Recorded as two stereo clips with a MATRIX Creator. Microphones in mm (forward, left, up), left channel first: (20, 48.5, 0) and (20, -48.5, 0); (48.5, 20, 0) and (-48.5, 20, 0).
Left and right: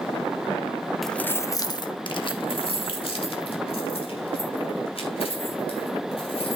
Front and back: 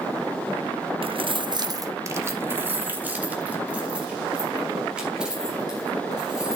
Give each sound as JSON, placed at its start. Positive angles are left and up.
{"t": 1.0, "sound": "keys jangling", "azimuth_deg": 180, "distance_m": 0.6}